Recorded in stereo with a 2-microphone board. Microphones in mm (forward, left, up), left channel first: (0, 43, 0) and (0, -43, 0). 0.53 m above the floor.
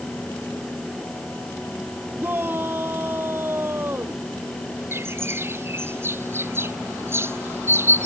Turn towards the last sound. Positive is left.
turn(degrees=-30)  # may be behind; listen again after turning